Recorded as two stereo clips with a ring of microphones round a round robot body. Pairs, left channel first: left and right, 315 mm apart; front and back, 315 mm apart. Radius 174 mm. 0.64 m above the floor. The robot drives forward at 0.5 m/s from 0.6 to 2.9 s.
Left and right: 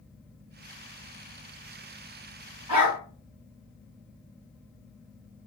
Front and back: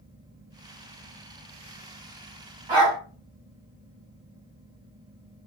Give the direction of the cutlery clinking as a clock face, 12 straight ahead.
No cutlery clinking in this recording.